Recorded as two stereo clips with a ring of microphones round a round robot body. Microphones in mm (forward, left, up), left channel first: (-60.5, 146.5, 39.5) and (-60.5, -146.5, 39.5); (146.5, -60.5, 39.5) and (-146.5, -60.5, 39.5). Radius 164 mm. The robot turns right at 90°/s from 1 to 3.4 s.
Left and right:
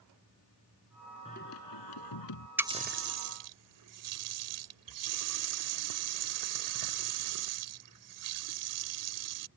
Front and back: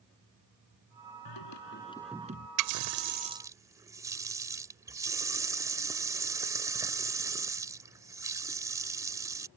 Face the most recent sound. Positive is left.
turn(degrees=-100)